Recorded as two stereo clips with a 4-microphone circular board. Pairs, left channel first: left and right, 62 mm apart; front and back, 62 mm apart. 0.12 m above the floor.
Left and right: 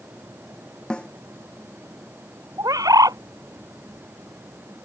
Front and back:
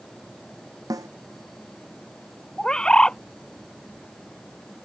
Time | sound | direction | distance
0.9 | a snare drum | 165° left | ?
2.6 | a bird | 80° right | ?